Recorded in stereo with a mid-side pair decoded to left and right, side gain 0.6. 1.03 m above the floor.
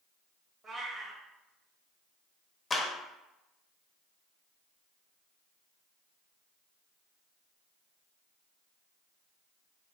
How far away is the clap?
About 0.8 m.